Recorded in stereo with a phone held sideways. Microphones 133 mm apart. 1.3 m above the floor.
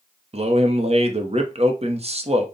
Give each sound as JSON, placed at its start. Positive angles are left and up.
{"t": 0.3, "sound": "a man speaking", "side_deg": -55, "distance_m": 0.7}